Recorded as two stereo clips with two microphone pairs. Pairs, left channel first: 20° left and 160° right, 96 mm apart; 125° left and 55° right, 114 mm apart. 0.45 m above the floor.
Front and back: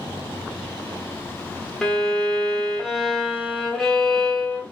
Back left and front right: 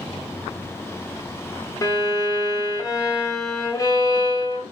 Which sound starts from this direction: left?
A violin, at 1.8 s.